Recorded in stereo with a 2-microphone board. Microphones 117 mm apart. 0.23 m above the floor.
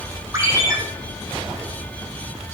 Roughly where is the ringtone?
Right.